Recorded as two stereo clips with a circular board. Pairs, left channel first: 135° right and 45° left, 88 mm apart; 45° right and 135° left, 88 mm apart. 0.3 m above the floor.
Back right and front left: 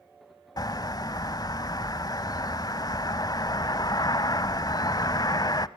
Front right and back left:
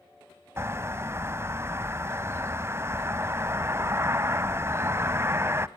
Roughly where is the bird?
Behind.